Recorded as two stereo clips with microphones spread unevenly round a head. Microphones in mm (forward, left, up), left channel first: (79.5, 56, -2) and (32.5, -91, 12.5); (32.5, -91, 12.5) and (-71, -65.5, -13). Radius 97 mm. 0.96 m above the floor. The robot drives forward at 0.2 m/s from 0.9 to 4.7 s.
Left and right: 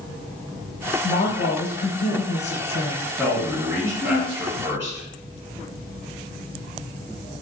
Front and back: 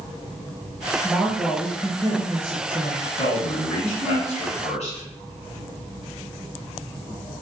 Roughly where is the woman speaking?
Left.